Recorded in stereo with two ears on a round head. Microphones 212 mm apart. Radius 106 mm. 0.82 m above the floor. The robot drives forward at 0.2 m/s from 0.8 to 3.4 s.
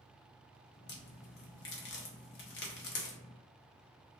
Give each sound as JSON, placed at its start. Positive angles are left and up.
{"t": 0.9, "sound": "a crack", "side_deg": 45, "distance_m": 0.7}